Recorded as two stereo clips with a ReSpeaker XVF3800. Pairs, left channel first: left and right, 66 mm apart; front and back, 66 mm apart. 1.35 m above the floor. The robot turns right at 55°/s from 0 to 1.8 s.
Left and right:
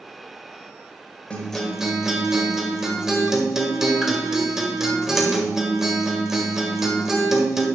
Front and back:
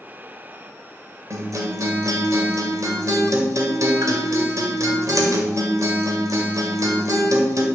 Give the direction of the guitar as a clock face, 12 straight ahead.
7 o'clock.